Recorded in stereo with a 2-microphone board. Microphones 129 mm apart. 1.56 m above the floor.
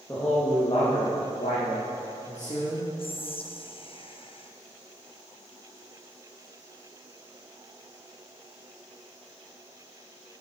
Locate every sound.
0.1 s a man speaking: 20° left (ahead or behind), 1.7 m; by 2.9 s 55° left (ahead or behind), 2.5 m
3.0 s whispering: 45° left (ahead or behind), 0.6 m